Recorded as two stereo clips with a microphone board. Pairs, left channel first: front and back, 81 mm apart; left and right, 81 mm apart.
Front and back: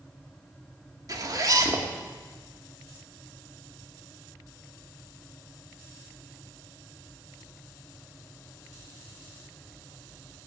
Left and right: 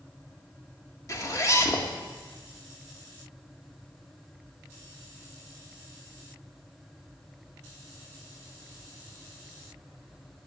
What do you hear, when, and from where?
1.1 s a zipper: 135° left, 1.4 m